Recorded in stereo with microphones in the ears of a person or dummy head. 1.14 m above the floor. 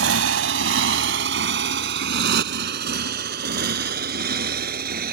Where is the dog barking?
No dog barking in this recording.